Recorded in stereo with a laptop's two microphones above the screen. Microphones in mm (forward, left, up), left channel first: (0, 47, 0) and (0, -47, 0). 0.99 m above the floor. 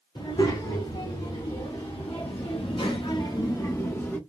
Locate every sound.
0.1 s a child speaking: 65° left (ahead or behind), 1.9 m; by 4.2 s 20° left (ahead or behind), 0.9 m